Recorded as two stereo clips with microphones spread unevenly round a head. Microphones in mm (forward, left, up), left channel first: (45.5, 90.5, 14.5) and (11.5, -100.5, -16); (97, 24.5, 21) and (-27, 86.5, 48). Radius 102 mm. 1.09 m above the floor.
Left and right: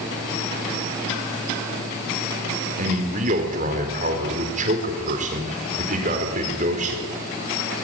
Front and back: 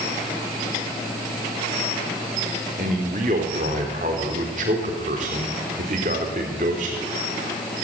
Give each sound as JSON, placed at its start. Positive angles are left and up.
{"t": 2.8, "sound": "a man speaking", "azimuth_deg": -155, "distance_m": 4.0}